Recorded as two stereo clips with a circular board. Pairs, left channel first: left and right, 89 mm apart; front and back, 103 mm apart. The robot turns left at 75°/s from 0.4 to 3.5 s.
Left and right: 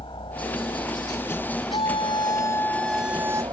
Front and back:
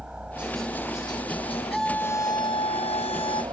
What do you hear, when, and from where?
0.0 s a helicopter: 100° left; by 3.5 s 130° right
1.7 s a scream: 95° left; by 3.4 s 35° right